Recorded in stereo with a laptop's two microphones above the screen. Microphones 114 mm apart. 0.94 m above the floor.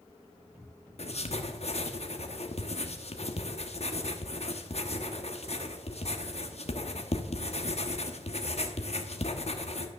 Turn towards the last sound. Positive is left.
turn(degrees=60)  # may be behind; listen again after turning